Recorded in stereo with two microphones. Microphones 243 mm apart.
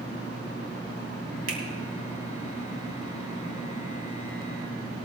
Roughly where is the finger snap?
Right.